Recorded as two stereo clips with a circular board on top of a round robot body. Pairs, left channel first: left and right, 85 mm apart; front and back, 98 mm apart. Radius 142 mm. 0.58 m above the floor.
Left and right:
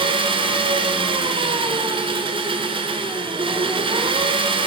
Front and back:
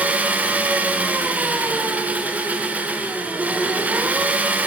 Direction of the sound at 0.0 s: 105° right.